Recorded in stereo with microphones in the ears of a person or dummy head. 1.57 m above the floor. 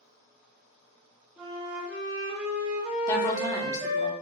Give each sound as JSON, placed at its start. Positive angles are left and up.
{"t": 1.4, "sound": "a flute", "side_deg": -5, "distance_m": 0.8}
{"t": 3.1, "sound": "a woman speaking", "side_deg": 20, "distance_m": 0.8}